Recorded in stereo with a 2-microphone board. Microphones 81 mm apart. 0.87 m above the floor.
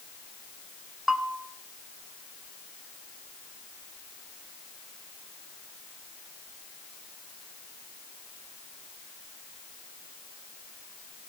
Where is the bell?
5° right (ahead or behind), 1.0 m.